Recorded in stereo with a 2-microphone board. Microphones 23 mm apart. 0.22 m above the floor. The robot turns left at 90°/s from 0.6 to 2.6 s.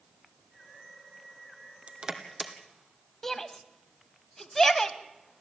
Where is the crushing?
60° right (ahead or behind), 1.9 m; by 2.5 s centre (ahead or behind), 1.9 m.